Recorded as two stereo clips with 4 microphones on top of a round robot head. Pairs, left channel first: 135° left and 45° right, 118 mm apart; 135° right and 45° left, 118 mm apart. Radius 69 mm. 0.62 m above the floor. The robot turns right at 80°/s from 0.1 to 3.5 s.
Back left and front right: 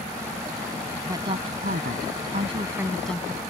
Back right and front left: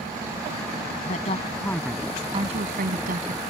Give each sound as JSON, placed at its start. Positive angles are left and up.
{"t": 1.1, "sound": "a woman speaking", "azimuth_deg": -110}